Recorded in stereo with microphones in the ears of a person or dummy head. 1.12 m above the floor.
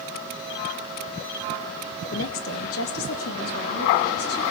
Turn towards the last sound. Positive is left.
turn(degrees=80)